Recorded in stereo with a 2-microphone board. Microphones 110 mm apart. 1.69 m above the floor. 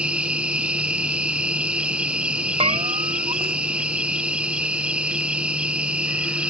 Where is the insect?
10° right (ahead or behind).